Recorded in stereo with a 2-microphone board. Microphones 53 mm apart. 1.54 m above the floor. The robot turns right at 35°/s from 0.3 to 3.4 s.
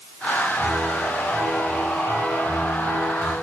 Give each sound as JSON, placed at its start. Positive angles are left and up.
{"t": 0.6, "sound": "a piano", "azimuth_deg": 180, "distance_m": 8.5}